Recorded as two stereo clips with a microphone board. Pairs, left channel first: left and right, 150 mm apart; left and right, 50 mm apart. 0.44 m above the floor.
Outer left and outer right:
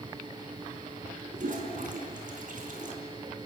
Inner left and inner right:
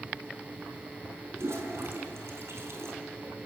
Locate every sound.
1.3 s a toilet flushing: 65° right (ahead or behind), 4.5 m